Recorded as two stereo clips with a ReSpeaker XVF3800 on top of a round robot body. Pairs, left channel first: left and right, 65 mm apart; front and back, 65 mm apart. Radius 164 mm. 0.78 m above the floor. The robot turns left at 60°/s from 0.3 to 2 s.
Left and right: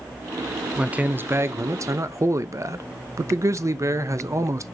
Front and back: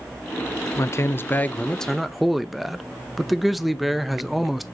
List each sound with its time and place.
0.8 s a man speaking: 20° right, 1.0 m; by 4.7 s 90° right, 1.0 m